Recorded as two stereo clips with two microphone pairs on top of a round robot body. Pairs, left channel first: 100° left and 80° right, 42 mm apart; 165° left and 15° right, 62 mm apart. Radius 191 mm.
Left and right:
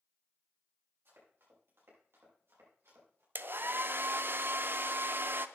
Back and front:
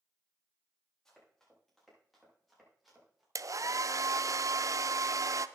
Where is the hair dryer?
40° right, 0.6 m.